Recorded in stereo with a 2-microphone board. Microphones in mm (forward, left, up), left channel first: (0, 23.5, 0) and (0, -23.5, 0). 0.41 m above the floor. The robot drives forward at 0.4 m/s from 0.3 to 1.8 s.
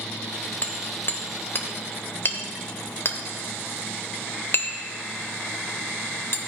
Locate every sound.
0.6 s hammering: 40° left (ahead or behind), 1.0 m; by 6.4 s 55° left (ahead or behind), 0.8 m